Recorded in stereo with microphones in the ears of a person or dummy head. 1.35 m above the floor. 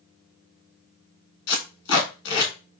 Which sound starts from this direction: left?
Tape being pulled, at 1.5 s.